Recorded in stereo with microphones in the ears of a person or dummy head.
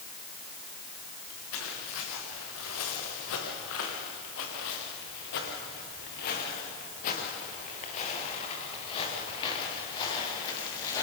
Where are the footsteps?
75° left (ahead or behind), 6 m; by 11.0 s 15° left (ahead or behind), 7.5 m.